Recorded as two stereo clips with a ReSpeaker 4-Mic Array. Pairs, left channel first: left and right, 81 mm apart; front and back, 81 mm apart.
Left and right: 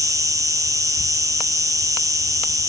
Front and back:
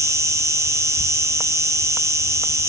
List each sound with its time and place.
0.0 s an insect: 130° right, 1.2 m